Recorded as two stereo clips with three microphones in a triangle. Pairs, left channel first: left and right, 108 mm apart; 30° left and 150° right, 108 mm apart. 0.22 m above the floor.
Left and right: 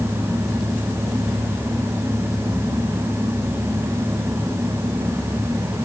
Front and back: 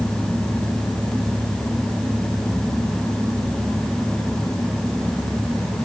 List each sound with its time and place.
Only background noise.